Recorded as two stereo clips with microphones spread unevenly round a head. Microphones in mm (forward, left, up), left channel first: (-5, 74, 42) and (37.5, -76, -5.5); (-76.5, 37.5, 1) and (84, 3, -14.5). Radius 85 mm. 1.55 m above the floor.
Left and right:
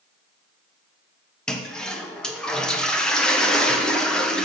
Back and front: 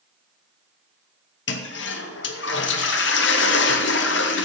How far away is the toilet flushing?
About 1.0 m.